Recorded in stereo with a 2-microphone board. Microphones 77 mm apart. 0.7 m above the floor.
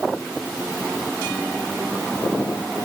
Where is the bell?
I don't hear a bell.